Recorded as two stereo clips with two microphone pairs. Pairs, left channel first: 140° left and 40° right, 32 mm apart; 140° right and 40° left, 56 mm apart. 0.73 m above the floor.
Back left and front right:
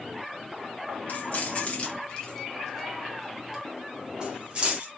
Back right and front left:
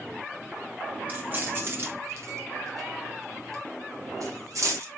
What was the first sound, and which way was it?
Keys jangling, 100° left.